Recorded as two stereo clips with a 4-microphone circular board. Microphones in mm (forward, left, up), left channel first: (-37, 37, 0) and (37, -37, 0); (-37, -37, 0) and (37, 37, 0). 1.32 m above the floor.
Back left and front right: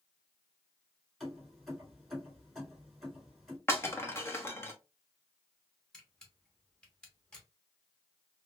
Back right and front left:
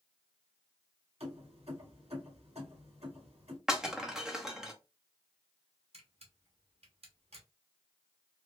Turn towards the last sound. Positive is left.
turn(degrees=55)